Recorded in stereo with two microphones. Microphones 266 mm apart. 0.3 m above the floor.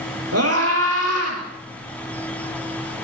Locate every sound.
0.3 s a scream: 70° right (ahead or behind), 7 m; by 1.4 s 75° right (ahead or behind), 7.5 m